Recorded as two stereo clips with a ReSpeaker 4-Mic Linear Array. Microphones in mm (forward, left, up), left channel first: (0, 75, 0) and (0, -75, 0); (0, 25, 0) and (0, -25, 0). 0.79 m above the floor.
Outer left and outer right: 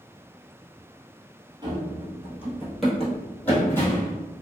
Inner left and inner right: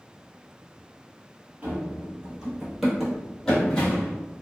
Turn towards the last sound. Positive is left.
turn(degrees=20)  # may be behind; listen again after turning